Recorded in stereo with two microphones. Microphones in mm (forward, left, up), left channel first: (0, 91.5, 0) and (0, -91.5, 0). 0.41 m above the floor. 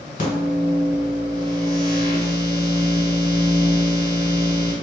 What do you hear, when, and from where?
0.2 s a microwave: 45° left (ahead or behind), 1.2 m